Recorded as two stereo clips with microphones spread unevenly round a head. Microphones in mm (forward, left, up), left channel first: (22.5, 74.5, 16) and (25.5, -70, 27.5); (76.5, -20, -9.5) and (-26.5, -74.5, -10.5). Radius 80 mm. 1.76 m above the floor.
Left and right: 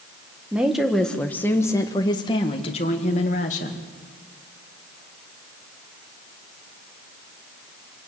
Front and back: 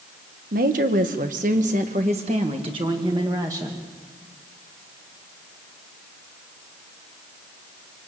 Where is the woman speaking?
170° right, 1.8 m; by 3.8 s 135° left, 2.5 m.